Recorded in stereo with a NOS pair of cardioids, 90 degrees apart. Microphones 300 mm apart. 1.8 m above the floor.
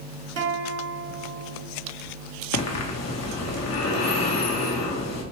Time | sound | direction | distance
0.4 | a guitar | 55° right | 1.2 m
2.5 | breathing | 60° left | 1.2 m